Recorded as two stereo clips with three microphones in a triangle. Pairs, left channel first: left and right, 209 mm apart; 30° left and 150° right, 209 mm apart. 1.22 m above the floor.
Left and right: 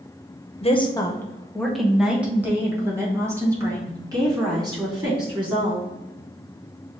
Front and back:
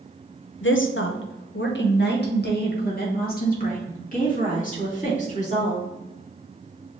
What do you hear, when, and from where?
0.6 s a woman speaking: 35° left, 0.6 m; by 5.9 s 25° right, 3 m